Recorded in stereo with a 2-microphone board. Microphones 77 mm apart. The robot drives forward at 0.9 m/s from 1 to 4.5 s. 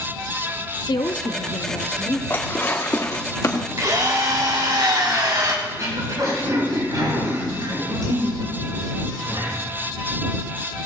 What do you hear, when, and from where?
0.9 s a woman speaking: 70° left (ahead or behind), 0.7 m; by 2.2 s 35° left (ahead or behind), 1.1 m
2.3 s dishes clattering: 30° left (ahead or behind), 2 m; by 3.7 s 50° left (ahead or behind), 1.3 m
3.8 s a drill: 50° right (ahead or behind), 2.5 m; by 5.5 s 60° right (ahead or behind), 2.5 m
5.7 s throat clearing: 55° right (ahead or behind), 5 m